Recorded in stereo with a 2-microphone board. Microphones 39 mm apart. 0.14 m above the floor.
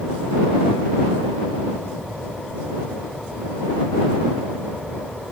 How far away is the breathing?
No breathing in this recording.